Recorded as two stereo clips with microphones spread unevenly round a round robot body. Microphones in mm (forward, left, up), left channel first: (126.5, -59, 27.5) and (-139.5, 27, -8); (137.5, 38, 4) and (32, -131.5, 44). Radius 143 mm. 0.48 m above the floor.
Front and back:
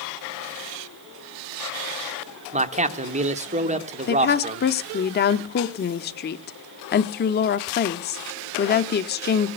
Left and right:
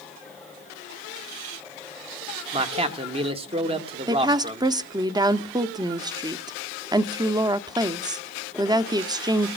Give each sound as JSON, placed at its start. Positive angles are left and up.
{"t": 2.5, "sound": "a man speaking", "azimuth_deg": 175, "distance_m": 1.3}
{"t": 4.1, "sound": "a woman speaking", "azimuth_deg": -45, "distance_m": 0.8}